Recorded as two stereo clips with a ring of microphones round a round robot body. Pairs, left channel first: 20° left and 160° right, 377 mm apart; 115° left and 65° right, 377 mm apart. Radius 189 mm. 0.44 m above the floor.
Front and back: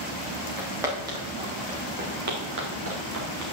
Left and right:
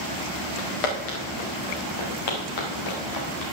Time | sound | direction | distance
0.6 | footsteps | 115° left | 4 m